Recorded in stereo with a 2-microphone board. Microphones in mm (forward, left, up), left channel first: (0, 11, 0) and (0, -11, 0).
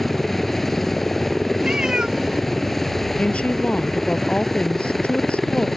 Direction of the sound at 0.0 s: 10° left (ahead or behind).